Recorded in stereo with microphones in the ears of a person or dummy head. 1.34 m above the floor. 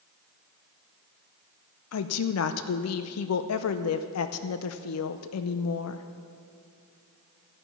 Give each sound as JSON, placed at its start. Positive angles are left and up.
{"t": 1.9, "sound": "a woman speaking", "side_deg": 80, "distance_m": 0.5}